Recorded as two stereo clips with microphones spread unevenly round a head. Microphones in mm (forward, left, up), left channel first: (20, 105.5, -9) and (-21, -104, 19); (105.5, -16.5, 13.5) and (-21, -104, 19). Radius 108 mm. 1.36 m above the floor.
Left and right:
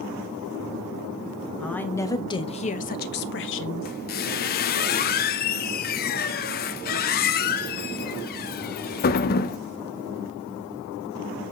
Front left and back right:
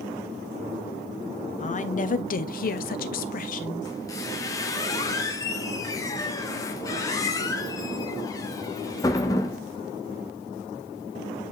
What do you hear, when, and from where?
1.6 s a woman speaking: 5° right, 1.1 m; by 3.9 s 80° left, 0.9 m
3.9 s a squeak: 95° left, 0.5 m